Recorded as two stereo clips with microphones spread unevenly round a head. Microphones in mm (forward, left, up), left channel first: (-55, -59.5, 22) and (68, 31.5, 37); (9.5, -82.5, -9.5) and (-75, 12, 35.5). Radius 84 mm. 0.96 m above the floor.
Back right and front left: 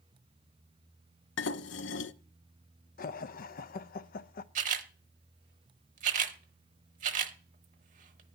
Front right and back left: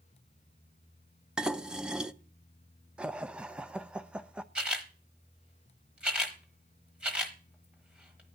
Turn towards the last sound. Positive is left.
turn(degrees=65)